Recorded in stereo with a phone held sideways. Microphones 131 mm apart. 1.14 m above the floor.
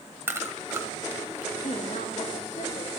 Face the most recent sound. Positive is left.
turn(degrees=65)  # may be behind; listen again after turning